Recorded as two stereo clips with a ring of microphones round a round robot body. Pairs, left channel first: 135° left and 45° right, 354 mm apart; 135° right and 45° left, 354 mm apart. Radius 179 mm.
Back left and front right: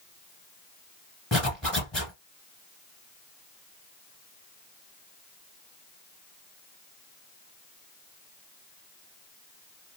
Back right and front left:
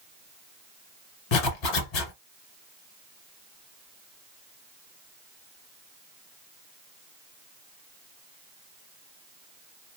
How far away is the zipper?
About 1.7 m.